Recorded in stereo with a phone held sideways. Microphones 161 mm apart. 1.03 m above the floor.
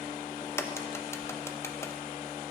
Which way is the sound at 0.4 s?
15° left (ahead or behind).